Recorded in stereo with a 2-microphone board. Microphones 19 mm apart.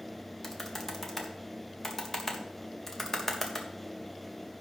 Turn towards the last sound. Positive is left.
turn(degrees=15)  # may be behind; listen again after turning